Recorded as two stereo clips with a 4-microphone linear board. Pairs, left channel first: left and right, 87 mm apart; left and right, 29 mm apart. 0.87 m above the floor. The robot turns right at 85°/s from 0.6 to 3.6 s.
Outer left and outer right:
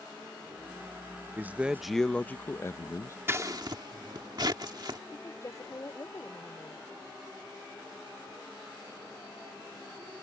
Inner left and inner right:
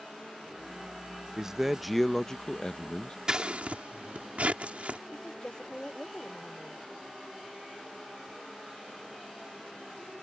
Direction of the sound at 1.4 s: 45° right.